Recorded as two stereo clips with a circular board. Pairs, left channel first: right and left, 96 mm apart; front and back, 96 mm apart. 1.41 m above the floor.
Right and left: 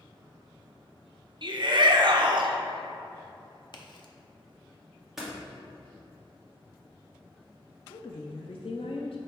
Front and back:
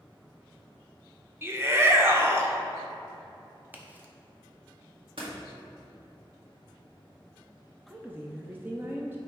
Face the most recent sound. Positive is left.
turn(degrees=-110)